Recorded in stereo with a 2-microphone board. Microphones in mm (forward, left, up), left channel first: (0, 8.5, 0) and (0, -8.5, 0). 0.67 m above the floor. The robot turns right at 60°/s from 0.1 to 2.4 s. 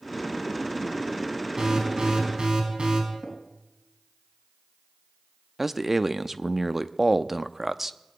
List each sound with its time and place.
1.6 s an alarm: 140° right, 5 m; by 3.0 s 90° right, 5 m
3.2 s tapping: 65° right (ahead or behind), 4 m
5.6 s a man speaking: 25° right (ahead or behind), 0.6 m